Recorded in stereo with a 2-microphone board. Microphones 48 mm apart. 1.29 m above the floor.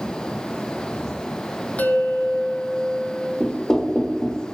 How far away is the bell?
About 1.6 m.